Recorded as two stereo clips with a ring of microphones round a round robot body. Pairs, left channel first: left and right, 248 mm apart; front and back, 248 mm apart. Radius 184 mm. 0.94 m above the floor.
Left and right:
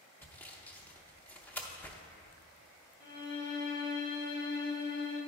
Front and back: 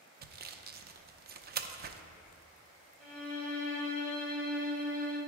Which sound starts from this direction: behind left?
A violin, at 3.0 s.